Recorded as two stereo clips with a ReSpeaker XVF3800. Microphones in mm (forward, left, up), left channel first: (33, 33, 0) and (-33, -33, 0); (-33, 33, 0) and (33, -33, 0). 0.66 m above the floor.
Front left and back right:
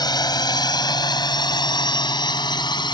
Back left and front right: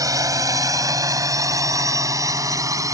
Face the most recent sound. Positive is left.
turn(degrees=10)